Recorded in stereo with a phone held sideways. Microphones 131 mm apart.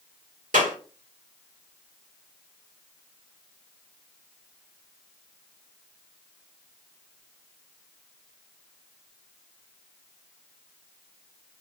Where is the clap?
85° right, 1.7 m.